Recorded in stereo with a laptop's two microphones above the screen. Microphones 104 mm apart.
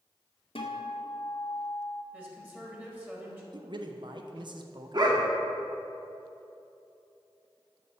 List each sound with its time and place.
0.6 s a guitar: 65° left (ahead or behind), 0.8 m
2.1 s a woman speaking: 15° right (ahead or behind), 1.8 m
3.5 s a man speaking: 50° right (ahead or behind), 0.6 m
4.9 s a dog barking: 45° right (ahead or behind), 0.7 m